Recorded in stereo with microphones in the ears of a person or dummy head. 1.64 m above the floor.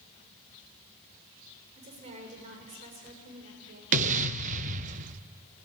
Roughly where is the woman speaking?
Right.